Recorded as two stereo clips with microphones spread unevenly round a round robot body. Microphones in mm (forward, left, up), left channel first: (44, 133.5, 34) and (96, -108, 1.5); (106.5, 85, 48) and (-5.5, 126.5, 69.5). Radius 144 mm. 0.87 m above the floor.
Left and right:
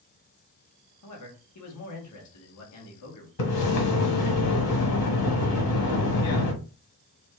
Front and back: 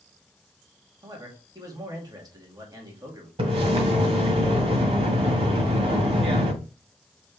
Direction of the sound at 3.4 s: 125° left.